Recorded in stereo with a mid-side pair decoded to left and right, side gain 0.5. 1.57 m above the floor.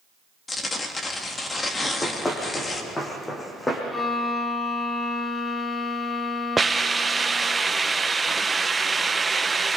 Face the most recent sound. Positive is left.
turn(degrees=-20)